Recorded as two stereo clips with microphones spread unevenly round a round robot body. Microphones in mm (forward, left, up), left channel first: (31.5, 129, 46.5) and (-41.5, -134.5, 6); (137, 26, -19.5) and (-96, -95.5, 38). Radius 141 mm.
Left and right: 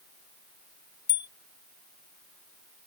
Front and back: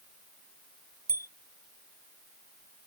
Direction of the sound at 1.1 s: 130° left.